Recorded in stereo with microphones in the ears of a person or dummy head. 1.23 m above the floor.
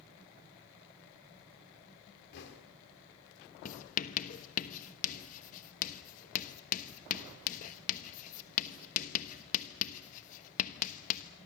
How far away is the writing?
About 1.2 m.